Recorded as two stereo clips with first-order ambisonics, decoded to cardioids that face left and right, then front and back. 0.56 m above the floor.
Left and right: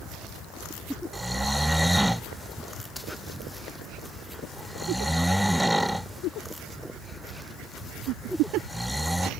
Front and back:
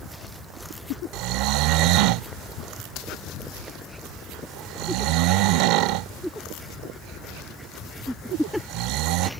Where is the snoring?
175° right.